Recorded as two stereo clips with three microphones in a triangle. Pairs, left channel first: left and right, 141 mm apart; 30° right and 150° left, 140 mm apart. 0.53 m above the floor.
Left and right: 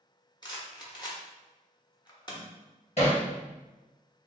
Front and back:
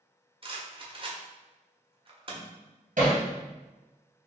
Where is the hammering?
125° left, 2 m.